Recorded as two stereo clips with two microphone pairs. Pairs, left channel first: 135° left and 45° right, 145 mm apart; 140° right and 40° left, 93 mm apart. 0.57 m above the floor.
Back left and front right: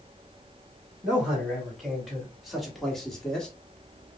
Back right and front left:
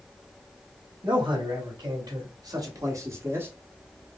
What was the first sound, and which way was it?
A man speaking, 40° left.